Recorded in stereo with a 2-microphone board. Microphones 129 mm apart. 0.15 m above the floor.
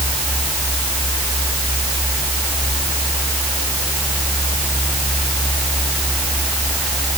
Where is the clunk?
No clunk in this recording.